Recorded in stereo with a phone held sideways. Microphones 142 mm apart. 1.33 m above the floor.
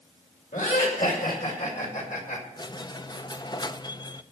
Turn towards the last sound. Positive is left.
turn(degrees=30)  # may be behind; listen again after turning